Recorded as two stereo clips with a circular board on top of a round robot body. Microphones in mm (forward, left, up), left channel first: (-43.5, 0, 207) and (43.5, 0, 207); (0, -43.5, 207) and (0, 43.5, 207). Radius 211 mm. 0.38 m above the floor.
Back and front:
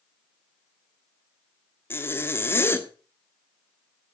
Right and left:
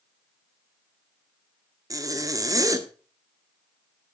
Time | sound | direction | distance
1.9 | a zipper | 125° left | 1.8 m